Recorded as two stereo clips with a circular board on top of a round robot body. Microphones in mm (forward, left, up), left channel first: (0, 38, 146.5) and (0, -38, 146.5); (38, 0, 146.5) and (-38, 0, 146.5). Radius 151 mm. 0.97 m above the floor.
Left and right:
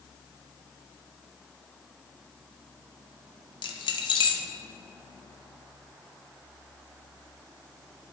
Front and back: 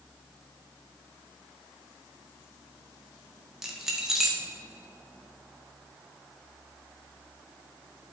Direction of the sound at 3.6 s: 95° left.